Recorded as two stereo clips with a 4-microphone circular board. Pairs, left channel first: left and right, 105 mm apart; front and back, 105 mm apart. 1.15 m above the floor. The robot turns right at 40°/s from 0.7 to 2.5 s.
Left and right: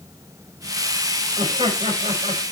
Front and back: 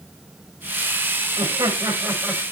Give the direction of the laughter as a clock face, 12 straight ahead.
5 o'clock.